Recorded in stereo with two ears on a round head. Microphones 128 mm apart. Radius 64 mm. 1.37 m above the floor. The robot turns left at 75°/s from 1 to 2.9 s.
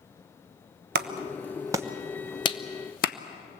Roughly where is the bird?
No bird in this recording.